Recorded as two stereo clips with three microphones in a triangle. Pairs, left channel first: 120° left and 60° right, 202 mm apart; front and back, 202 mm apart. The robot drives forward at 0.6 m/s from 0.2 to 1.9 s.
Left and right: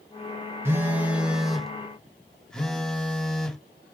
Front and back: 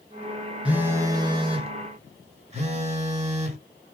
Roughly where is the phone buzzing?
Right.